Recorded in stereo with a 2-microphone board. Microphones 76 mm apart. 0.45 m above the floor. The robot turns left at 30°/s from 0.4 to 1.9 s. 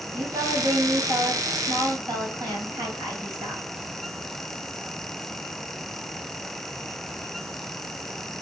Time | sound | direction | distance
0.1 | a woman speaking | 65° right | 2.5 m